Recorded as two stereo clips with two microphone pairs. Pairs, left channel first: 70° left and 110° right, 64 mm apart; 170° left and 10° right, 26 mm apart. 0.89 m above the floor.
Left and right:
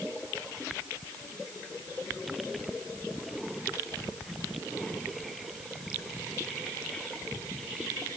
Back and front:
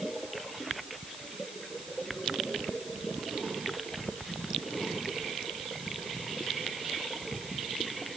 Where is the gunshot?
I don't hear a gunshot.